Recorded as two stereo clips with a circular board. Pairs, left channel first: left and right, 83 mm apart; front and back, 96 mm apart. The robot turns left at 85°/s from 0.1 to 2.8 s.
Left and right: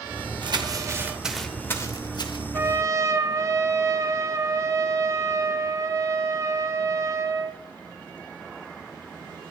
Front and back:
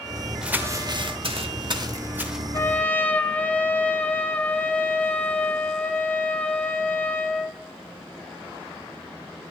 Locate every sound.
0.4 s crumpling: 100° right, 1.0 m; by 2.4 s 90° left, 1.0 m
2.5 s a trumpet: 45° right, 0.6 m; by 7.6 s 65° right, 0.6 m